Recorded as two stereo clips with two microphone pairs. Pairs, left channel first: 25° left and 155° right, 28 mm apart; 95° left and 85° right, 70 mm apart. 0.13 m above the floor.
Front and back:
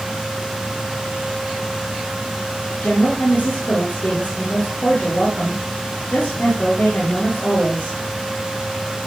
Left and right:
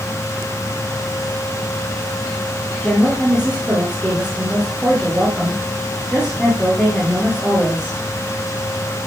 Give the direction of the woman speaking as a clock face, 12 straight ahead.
12 o'clock.